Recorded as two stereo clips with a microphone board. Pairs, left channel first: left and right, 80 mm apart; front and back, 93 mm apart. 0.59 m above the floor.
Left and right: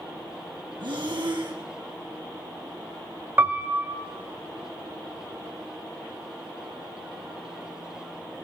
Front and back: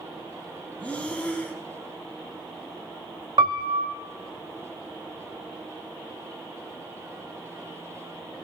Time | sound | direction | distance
0.8 | breathing | 75° right | 2.5 m
3.4 | a piano | 150° right | 0.9 m